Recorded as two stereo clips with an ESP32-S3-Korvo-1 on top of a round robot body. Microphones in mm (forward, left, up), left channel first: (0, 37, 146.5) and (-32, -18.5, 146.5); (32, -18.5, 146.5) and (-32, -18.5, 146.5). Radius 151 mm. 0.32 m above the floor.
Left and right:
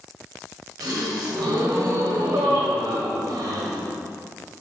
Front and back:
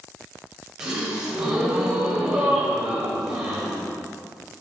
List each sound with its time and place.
0.8 s a gasp: 95° right, 1.5 m